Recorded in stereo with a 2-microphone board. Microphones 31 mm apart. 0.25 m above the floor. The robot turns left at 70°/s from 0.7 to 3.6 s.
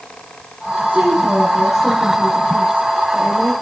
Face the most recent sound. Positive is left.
turn(degrees=50)